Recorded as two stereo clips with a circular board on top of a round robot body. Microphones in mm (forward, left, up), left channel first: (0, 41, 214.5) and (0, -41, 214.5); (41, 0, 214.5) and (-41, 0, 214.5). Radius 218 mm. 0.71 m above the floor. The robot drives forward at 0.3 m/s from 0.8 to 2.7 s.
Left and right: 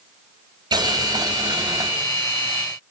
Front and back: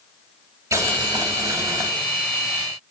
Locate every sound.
0.7 s boiling: 130° right, 4 m; by 1.9 s 135° right, 4 m